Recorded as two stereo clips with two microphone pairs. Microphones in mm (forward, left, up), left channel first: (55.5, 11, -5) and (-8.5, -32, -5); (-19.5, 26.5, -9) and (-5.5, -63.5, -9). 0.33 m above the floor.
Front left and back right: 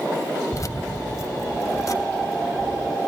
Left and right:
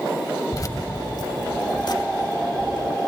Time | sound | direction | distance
0.5 | keys jangling | 60° left | 1.0 m